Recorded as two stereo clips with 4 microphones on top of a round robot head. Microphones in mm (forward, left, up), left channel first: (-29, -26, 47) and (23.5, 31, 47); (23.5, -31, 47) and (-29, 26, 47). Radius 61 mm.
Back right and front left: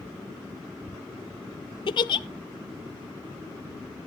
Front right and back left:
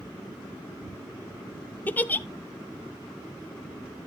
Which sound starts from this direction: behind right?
A giggle, at 1.9 s.